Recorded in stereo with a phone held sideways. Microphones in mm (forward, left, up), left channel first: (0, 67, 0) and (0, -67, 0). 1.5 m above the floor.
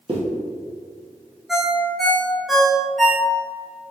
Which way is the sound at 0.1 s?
40° right (ahead or behind).